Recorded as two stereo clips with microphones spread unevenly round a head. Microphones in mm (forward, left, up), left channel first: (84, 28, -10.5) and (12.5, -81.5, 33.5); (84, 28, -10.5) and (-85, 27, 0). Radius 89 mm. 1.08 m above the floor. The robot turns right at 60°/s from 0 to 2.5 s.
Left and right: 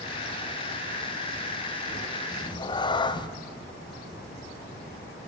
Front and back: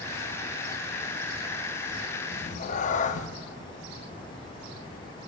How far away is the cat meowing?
About 0.6 m.